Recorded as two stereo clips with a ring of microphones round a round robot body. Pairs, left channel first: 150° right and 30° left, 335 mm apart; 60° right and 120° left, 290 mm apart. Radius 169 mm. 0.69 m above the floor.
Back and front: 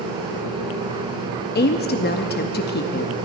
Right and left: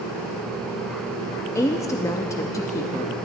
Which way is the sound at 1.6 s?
130° right.